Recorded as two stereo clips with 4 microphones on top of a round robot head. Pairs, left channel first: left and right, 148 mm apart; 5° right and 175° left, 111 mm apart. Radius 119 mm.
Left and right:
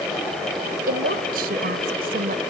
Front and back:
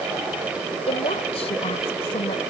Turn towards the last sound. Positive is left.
turn(degrees=-55)